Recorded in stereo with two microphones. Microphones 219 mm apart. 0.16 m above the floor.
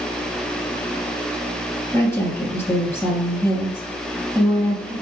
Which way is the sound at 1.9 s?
10° left (ahead or behind).